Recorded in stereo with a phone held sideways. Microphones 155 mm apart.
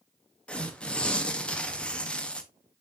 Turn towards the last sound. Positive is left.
turn(degrees=5)  # may be behind; listen again after turning